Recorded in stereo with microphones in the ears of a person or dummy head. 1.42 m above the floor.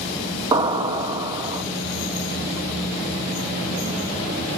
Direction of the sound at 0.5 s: 15° right (ahead or behind).